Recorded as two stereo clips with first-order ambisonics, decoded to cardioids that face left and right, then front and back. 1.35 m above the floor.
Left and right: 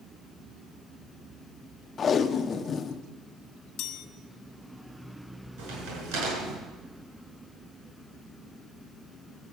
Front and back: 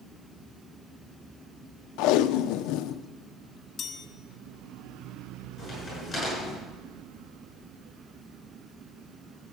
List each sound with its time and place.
2.0 s tape being pulled: 25° left, 0.6 m
3.8 s a chime: 60° left, 1.2 m
5.6 s a crack: 80° right, 7 m